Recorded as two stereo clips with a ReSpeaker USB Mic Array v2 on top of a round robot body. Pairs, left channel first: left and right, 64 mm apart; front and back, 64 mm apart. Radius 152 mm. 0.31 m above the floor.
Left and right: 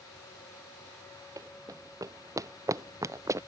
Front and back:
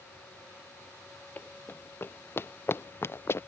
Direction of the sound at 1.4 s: 60° right.